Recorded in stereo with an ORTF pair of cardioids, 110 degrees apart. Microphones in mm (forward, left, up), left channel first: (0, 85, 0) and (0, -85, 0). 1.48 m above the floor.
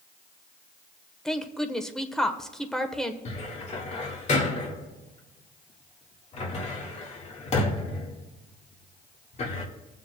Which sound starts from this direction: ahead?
A woman speaking, at 1.2 s.